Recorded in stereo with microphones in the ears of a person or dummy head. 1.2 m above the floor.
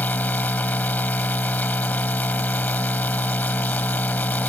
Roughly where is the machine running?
Centre.